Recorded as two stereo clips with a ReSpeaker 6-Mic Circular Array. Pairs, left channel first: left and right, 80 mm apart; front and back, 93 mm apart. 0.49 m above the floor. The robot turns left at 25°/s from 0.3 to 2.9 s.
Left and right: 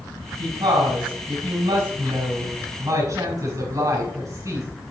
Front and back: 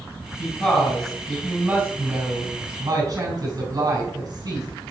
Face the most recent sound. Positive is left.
turn(degrees=-135)